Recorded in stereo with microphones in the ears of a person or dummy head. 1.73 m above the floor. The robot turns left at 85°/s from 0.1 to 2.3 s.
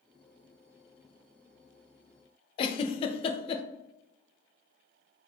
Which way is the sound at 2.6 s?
35° left (ahead or behind).